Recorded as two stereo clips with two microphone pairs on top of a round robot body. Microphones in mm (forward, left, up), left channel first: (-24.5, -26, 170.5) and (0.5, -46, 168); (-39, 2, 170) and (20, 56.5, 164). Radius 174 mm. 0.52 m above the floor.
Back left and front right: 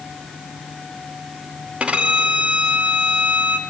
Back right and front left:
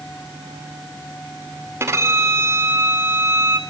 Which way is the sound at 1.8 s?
Straight ahead.